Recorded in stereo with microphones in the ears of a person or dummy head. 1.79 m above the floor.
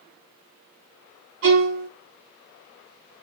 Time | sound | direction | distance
1.4 | a violin | 65° right (ahead or behind) | 2 m